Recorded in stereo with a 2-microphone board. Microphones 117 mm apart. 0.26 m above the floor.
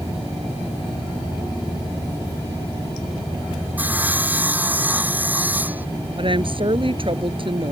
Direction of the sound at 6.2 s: 50° right (ahead or behind).